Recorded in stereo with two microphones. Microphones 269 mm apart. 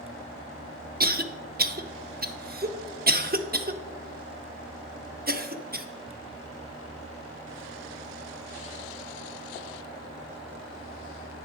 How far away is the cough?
About 0.9 m.